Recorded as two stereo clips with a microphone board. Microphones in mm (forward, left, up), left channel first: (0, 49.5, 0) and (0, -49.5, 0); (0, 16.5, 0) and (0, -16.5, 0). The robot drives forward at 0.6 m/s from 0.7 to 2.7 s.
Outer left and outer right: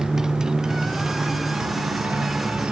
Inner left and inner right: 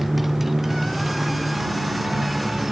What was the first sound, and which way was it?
A motorcycle, 5° right (ahead or behind).